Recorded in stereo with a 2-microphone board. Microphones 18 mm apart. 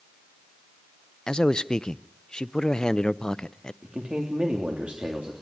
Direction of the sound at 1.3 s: 40° left (ahead or behind).